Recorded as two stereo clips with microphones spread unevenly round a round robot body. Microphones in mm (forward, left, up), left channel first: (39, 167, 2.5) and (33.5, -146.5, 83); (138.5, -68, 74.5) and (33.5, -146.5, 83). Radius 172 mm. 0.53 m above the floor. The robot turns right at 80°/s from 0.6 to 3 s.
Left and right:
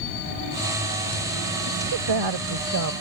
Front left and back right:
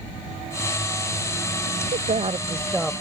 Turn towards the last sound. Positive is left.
turn(degrees=-45)